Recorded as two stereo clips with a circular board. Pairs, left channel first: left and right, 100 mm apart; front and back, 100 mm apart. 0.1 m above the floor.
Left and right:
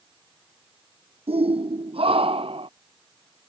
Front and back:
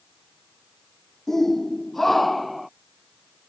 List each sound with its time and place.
1.3 s a shout: 85° right; by 2.7 s 90° right